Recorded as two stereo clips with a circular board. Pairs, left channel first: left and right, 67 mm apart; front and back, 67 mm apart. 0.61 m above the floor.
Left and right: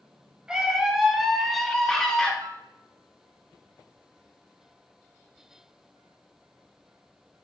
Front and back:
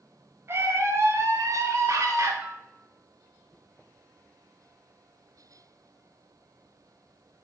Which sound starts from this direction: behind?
A scream, at 0.5 s.